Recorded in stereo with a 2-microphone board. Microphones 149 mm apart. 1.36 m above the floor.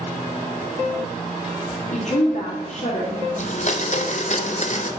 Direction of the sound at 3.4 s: 55° left (ahead or behind).